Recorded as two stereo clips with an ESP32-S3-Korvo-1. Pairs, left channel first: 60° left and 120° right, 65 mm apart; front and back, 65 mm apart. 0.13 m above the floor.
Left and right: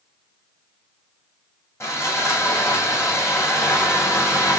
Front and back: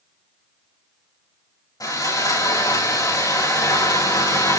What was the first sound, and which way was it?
Sawing, 15° left.